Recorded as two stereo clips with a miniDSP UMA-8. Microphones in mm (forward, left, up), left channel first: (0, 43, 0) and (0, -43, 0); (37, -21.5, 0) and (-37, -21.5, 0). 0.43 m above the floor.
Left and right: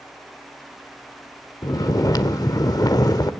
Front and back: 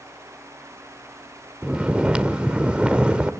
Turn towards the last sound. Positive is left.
turn(degrees=110)